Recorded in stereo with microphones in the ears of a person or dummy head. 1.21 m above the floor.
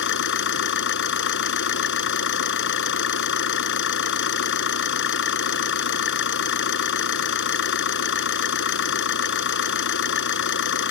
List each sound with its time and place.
0.0 s an engine running: 60° left (ahead or behind)